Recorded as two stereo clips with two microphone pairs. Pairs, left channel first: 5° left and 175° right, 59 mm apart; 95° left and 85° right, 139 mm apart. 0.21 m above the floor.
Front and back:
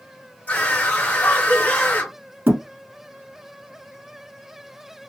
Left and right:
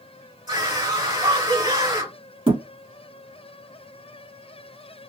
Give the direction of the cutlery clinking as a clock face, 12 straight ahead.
No cutlery clinking in this recording.